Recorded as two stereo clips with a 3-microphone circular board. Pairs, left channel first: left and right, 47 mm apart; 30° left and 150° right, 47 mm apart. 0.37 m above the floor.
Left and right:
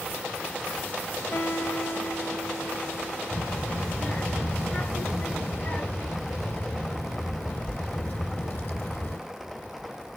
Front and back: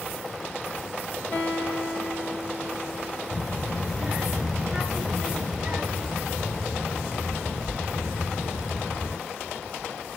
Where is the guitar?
80° left, 2 m.